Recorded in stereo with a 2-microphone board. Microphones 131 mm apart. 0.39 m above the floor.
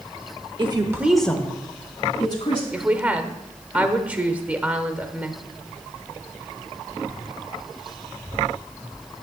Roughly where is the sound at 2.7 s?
Centre.